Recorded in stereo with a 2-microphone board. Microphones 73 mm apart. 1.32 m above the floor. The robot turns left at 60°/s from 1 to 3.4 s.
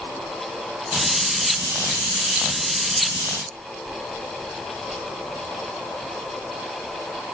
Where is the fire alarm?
No fire alarm in this recording.